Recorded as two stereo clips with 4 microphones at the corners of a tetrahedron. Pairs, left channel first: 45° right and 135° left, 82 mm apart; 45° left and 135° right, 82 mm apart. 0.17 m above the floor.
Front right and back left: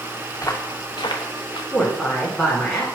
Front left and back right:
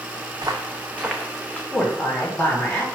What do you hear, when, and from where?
0.3 s footsteps: 95° right, 0.9 m; by 1.6 s 35° right, 1.0 m
1.7 s a woman speaking: 40° left, 1.4 m